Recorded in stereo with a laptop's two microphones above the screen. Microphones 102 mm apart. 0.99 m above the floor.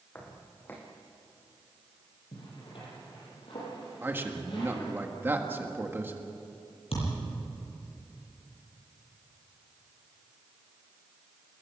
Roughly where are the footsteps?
Left.